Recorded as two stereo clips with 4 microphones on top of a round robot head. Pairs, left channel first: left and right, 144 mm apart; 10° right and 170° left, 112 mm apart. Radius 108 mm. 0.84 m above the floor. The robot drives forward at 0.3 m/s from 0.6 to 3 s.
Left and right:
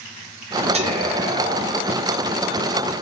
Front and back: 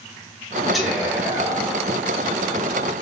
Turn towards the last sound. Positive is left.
turn(degrees=-145)